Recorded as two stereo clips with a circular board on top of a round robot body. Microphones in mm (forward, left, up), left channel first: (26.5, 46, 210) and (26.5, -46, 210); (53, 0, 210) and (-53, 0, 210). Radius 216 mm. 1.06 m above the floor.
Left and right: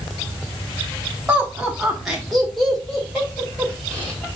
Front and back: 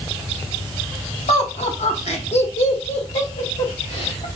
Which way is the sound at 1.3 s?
15° right.